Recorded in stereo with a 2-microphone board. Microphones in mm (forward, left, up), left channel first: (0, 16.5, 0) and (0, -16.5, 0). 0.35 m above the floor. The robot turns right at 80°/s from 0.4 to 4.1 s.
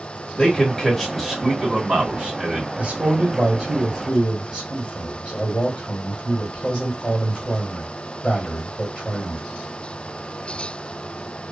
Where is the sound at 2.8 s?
40° right (ahead or behind), 1.4 m; by 9.4 s 25° left (ahead or behind), 1.4 m.